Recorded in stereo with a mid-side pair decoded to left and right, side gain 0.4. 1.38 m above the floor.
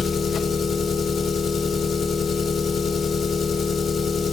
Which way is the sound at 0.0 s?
65° left.